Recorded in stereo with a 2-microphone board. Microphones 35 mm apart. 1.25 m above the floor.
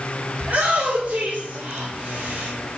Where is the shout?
60° right (ahead or behind), 3 m; by 2.5 s 70° right (ahead or behind), 4 m.